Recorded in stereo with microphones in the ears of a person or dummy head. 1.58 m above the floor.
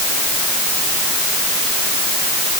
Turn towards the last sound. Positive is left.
No sound to turn to.